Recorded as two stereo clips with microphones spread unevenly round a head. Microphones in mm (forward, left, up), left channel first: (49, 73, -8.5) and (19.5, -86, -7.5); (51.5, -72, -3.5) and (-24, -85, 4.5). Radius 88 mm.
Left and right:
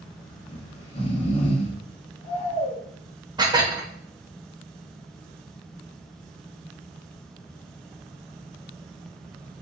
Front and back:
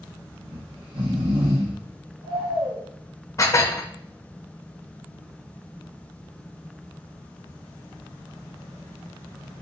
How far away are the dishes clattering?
About 1.0 m.